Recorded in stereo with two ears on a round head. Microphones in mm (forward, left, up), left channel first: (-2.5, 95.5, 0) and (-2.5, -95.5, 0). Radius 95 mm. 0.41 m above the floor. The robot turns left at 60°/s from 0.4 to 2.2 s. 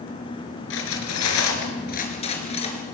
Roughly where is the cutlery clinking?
Left.